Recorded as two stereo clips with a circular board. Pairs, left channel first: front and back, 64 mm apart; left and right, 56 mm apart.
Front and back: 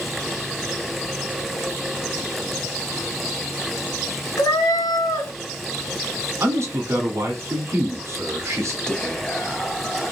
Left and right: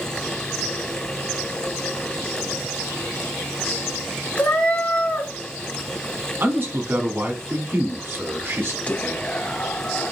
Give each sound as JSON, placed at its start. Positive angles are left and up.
{"t": 4.4, "sound": "a cat meowing", "azimuth_deg": 20, "distance_m": 1.0}
{"t": 6.4, "sound": "a man speaking", "azimuth_deg": -140, "distance_m": 1.3}
{"t": 8.9, "sound": "whispering", "azimuth_deg": 65, "distance_m": 0.7}